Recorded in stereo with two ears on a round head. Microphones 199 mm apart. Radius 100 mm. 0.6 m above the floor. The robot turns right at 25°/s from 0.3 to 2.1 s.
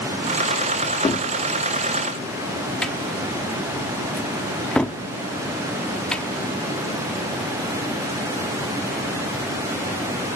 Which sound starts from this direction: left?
A cupboard door, at 1.0 s.